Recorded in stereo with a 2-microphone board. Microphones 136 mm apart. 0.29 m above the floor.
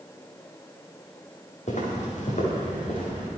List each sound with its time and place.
1.7 s footsteps: 60° left (ahead or behind), 4.5 m